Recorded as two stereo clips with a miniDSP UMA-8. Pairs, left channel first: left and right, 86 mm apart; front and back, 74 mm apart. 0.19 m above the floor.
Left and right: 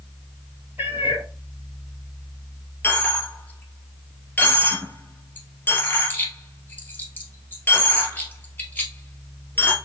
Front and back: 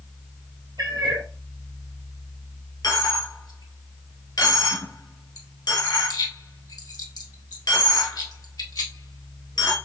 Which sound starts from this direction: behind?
A cat meowing, at 0.8 s.